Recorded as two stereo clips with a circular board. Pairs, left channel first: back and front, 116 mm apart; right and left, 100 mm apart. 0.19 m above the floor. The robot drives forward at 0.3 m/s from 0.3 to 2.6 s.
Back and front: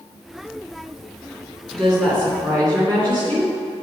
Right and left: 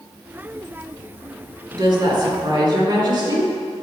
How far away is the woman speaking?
About 2.5 m.